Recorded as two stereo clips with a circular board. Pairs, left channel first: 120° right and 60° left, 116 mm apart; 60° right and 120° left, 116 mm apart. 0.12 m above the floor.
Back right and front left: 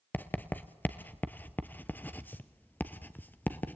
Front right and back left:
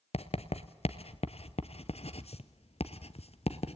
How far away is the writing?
About 0.9 m.